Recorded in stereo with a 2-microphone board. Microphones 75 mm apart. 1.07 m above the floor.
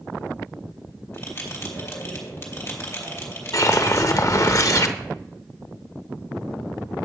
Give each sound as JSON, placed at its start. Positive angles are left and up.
{"t": 1.1, "sound": "a bell", "side_deg": 35, "distance_m": 2.5}
{"t": 3.5, "sound": "a whoosh", "side_deg": 45, "distance_m": 0.6}